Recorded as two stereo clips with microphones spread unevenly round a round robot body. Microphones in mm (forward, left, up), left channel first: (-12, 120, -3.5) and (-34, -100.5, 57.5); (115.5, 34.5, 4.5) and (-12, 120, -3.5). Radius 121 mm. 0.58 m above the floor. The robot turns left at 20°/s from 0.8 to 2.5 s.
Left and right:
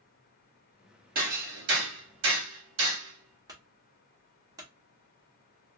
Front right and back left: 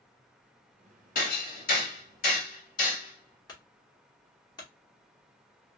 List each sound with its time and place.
1.1 s hammering: 40° right, 1.2 m; by 3.4 s 65° right, 1.2 m
3.5 s a clunk: 10° right, 1.0 m